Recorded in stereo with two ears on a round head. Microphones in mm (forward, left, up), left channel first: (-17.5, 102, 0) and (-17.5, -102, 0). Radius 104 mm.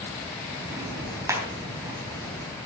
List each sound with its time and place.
0.7 s ticking: 15° right (ahead or behind), 3.5 m